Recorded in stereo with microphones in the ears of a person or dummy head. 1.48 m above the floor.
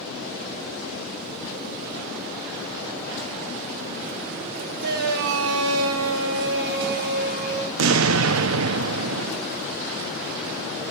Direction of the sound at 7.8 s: 75° right (ahead or behind).